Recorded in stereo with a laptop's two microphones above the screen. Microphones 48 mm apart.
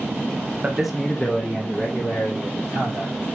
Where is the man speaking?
20° right (ahead or behind), 0.8 m; by 3.1 s 55° left (ahead or behind), 2.5 m.